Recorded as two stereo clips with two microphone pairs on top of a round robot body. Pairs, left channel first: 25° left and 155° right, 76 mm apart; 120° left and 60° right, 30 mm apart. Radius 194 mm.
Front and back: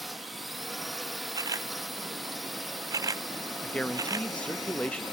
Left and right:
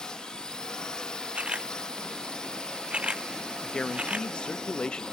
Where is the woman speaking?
85° left.